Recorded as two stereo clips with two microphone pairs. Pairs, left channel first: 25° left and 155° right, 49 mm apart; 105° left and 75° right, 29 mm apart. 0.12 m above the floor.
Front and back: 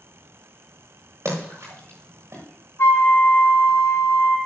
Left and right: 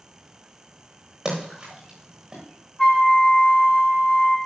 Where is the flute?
40° left, 4 m.